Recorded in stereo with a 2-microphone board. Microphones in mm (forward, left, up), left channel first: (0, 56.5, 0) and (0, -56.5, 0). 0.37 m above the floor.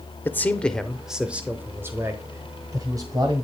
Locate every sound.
0.2 s a man speaking: 20° left (ahead or behind), 0.8 m; by 3.4 s 35° right (ahead or behind), 1.8 m